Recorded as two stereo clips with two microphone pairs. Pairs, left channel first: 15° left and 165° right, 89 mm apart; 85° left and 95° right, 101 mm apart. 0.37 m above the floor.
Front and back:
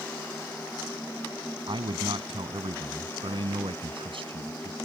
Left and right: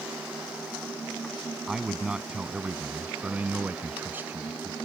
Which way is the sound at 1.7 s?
Straight behind.